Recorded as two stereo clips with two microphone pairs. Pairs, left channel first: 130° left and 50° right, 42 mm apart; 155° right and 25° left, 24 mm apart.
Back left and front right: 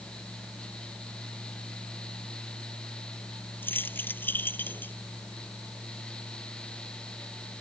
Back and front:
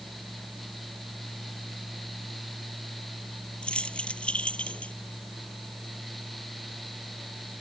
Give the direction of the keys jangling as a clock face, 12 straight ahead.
7 o'clock.